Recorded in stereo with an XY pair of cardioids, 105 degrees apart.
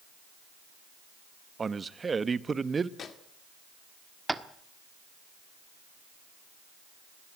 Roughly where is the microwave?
Ahead left.